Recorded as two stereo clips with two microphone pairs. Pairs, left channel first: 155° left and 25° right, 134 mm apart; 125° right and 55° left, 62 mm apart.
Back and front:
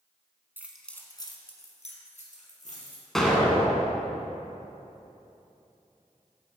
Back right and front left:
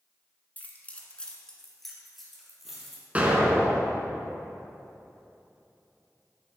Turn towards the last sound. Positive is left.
turn(degrees=65)